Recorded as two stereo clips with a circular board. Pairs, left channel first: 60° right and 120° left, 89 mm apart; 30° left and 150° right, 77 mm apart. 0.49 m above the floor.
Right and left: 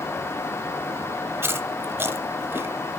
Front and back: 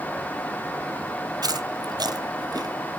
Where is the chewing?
175° right, 1.1 m.